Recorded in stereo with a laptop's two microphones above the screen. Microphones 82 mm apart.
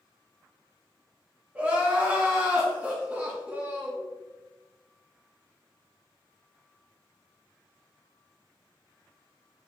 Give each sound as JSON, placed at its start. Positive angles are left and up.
{"t": 1.6, "sound": "crying", "side_deg": -15, "distance_m": 0.8}